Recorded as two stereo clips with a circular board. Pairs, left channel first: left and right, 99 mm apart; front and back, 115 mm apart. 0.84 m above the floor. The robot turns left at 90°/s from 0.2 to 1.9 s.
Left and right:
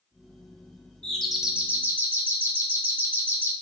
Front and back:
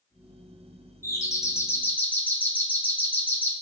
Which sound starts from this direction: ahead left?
A doorbell, at 1.0 s.